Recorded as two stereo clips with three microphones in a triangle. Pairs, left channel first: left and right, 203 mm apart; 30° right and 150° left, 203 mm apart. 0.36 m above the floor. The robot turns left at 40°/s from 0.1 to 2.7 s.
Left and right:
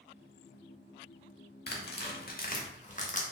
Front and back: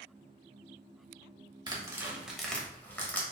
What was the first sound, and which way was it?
Tearing paper, 90° left.